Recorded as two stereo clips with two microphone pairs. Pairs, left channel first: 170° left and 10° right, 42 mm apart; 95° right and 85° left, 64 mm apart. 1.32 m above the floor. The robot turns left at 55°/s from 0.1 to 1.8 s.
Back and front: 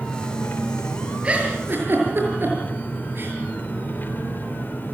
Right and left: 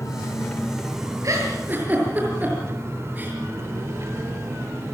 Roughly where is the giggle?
Ahead left.